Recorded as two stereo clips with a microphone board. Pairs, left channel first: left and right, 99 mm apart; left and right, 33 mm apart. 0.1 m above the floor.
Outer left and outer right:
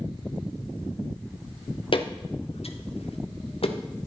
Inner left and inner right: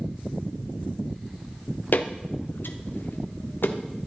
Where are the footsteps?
65° left (ahead or behind), 1.2 m; by 3.8 s 70° left (ahead or behind), 1.6 m.